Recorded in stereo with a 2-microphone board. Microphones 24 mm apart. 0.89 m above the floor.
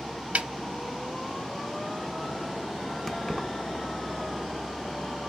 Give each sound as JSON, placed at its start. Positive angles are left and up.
{"t": 0.3, "sound": "a snare drum", "side_deg": -65, "distance_m": 0.5}
{"t": 3.1, "sound": "keys jangling", "side_deg": 15, "distance_m": 0.6}